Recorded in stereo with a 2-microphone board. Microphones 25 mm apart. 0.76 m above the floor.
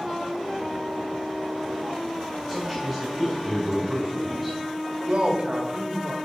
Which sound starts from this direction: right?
A man speaking, at 5.1 s.